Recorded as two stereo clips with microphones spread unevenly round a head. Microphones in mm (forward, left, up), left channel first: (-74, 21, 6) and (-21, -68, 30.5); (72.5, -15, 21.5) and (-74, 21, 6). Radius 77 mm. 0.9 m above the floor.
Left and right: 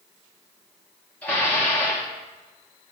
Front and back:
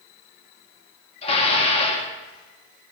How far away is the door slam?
I don't hear a door slam.